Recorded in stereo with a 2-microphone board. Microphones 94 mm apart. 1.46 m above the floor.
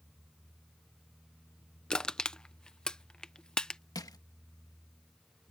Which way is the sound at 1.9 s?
10° left (ahead or behind).